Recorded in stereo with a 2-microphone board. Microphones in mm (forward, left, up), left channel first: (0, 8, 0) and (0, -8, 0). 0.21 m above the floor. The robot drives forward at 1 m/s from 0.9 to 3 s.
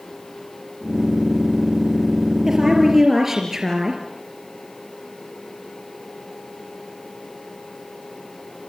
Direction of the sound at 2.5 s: 20° right (ahead or behind).